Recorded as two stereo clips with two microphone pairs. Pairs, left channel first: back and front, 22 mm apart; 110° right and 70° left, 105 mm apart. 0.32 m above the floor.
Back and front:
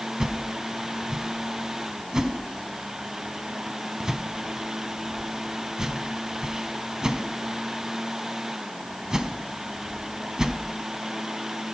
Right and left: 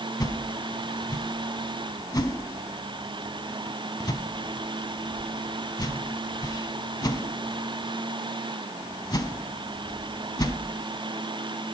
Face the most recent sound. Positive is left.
turn(degrees=-60)